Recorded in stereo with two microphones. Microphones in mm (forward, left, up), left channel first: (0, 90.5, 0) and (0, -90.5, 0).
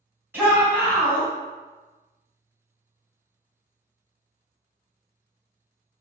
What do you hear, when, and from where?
0.3 s a shout: 10° right (ahead or behind), 1.8 m